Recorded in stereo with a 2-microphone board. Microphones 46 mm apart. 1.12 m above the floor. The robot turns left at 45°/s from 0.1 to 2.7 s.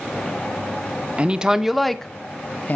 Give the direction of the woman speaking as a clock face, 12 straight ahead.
5 o'clock.